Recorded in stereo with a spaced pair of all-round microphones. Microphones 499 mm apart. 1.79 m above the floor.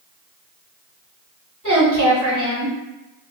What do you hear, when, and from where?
1.6 s a woman speaking: 35° right (ahead or behind), 1.5 m